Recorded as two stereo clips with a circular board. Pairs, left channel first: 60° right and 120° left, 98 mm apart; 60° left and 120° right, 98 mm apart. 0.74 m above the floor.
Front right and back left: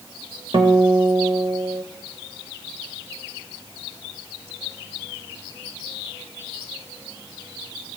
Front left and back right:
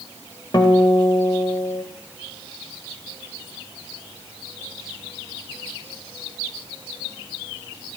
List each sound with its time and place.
0.5 s a guitar: 100° left, 0.9 m